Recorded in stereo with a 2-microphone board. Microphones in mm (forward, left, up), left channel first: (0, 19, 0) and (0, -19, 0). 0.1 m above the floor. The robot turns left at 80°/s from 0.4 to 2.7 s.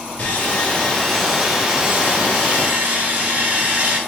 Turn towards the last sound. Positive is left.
turn(degrees=-105)